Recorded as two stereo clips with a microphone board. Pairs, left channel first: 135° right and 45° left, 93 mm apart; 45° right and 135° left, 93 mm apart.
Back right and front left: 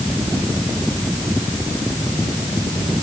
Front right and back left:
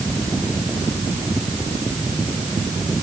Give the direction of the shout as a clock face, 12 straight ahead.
I don't hear a shout.